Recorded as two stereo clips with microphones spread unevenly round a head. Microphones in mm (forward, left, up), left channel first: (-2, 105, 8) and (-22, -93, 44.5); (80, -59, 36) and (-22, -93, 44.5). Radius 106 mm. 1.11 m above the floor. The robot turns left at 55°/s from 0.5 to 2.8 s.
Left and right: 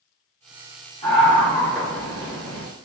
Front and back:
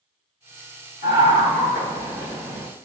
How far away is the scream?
About 1.7 m.